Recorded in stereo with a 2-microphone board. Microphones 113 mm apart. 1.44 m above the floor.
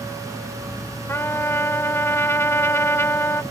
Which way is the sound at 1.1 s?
25° left (ahead or behind).